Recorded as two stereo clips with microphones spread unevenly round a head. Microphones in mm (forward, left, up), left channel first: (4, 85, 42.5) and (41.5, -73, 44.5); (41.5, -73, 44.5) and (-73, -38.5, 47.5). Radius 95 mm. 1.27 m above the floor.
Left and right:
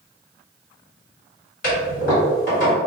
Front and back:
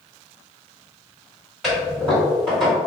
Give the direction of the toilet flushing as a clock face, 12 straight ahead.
10 o'clock.